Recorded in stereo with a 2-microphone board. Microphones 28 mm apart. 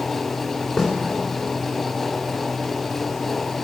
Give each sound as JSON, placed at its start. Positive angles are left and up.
{"t": 0.8, "sound": "a snare drum", "side_deg": -5, "distance_m": 3.0}